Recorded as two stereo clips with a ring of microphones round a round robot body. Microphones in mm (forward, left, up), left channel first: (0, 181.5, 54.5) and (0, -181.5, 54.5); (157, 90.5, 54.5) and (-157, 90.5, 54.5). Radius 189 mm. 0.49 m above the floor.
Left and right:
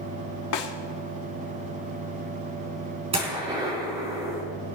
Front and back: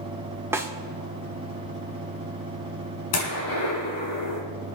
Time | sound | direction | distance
0.5 | a snare drum | 100° left | 1.9 m
3.1 | a gunshot | 15° right | 4.5 m